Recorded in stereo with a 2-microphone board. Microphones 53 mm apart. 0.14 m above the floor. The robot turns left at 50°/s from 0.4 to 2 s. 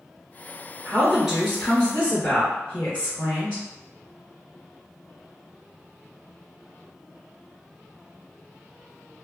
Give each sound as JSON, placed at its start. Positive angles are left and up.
{"t": 0.8, "sound": "a woman speaking", "azimuth_deg": -150, "distance_m": 2.0}